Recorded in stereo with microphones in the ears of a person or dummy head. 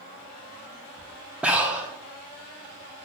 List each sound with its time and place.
1.4 s breathing: 10° right (ahead or behind), 0.5 m